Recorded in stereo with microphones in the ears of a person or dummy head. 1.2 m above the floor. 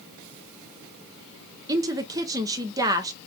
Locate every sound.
1.7 s a woman speaking: 15° right (ahead or behind), 0.6 m